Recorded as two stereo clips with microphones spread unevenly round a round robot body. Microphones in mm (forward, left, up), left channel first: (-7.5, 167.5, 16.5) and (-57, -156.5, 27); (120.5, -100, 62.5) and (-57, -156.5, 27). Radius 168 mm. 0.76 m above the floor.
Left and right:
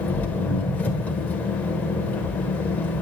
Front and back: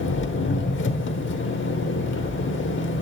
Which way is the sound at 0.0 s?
5° right.